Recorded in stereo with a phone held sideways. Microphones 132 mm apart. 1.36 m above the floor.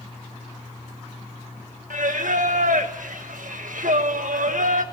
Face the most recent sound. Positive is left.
turn(degrees=-90)